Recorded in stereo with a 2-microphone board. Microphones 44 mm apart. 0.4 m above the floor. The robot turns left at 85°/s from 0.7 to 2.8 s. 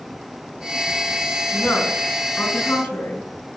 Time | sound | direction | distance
1.5 | a woman speaking | 30° left (ahead or behind) | 5.5 m